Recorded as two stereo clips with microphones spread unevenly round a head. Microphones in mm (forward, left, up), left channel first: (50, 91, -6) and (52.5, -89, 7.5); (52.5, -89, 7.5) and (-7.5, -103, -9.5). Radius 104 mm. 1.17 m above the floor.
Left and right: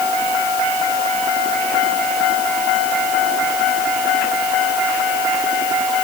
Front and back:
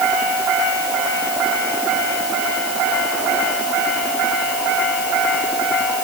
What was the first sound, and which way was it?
Only background noise.